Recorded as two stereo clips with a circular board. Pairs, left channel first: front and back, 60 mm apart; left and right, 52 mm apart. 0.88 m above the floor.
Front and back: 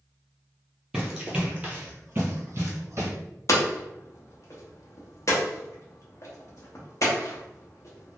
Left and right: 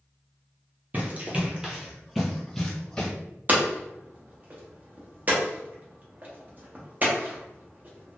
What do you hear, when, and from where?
0.9 s running footsteps: 105° right, 1.0 m; by 3.1 s 155° left, 1.3 m
3.5 s hammering: 35° right, 0.8 m